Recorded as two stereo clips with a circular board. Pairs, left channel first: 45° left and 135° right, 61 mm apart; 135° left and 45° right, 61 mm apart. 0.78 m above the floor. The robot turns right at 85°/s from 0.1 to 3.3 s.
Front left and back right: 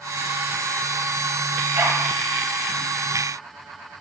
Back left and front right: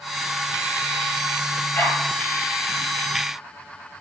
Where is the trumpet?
I don't hear a trumpet.